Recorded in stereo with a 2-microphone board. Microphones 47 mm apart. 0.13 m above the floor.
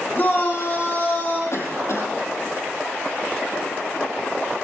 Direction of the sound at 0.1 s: 45° left (ahead or behind).